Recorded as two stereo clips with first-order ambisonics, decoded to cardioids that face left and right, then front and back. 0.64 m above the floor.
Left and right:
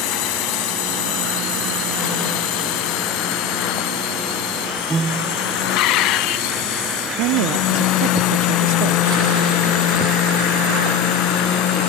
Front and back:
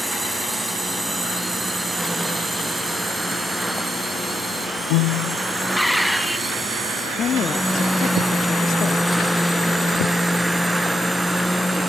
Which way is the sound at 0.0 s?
95° left.